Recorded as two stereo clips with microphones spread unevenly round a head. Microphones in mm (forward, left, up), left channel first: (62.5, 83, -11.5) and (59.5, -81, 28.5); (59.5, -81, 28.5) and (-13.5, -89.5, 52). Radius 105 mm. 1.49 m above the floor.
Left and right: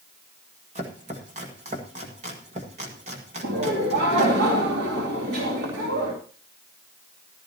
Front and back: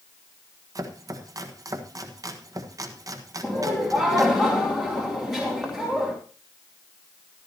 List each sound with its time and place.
0.8 s chopping: 145° right, 1.5 m
3.4 s laughter: 90° right, 2.5 m